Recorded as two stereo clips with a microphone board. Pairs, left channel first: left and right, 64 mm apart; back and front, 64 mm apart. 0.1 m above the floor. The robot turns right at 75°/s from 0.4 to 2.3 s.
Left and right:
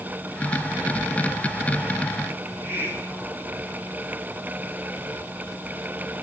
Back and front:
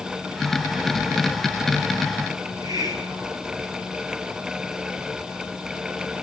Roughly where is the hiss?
Ahead right.